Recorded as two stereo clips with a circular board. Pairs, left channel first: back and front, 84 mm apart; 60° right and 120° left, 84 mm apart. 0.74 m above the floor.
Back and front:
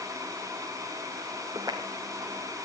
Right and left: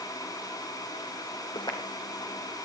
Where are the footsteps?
40° right, 2 m; by 2.6 s 25° right, 2.5 m.